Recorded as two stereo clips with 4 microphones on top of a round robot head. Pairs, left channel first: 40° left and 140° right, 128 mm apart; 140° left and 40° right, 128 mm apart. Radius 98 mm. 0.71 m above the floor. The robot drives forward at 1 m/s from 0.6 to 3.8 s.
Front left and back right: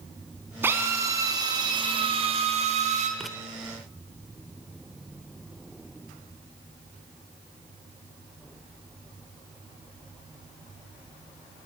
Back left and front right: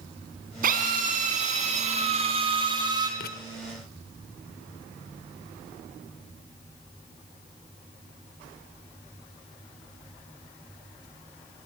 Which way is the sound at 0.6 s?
65° right.